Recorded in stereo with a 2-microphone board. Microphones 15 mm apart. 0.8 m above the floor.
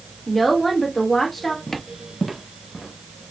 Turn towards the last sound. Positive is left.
turn(degrees=10)  # may be behind; listen again after turning